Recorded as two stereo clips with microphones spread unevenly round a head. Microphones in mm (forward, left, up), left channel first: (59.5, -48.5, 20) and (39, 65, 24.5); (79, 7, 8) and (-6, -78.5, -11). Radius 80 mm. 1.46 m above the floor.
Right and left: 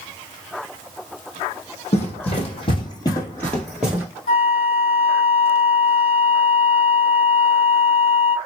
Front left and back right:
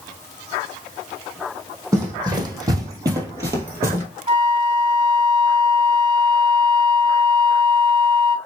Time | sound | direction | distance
1.9 | running footsteps | 75° right | 2.5 m
4.3 | a flute | 85° right | 2.5 m